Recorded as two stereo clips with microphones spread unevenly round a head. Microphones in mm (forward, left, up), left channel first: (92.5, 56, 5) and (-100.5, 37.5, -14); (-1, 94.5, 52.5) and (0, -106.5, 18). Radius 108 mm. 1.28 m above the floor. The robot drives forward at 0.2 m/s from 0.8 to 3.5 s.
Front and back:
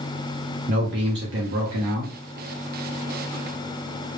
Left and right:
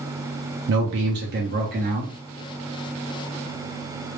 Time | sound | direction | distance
0.7 | a man speaking | 125° right | 0.5 m